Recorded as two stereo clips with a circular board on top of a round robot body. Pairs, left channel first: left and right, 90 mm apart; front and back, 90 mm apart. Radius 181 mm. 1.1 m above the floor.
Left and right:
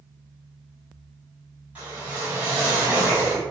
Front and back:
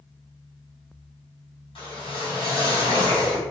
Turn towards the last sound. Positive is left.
turn(degrees=-15)